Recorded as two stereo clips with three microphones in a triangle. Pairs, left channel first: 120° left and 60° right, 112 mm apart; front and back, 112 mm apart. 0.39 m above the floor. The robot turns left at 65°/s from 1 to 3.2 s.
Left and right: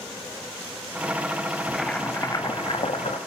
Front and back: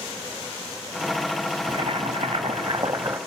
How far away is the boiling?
About 1.1 m.